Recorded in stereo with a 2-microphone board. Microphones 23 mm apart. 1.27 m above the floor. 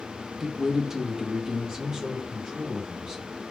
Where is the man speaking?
Centre (ahead or behind), 0.6 m; by 3.3 s 25° right (ahead or behind), 2 m.